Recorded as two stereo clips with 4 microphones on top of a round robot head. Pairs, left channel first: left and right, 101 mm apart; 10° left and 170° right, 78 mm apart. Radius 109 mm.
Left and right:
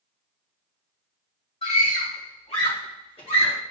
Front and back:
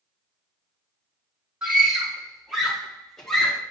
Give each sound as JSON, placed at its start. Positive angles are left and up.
{"t": 1.6, "sound": "a scream", "azimuth_deg": 110, "distance_m": 4.0}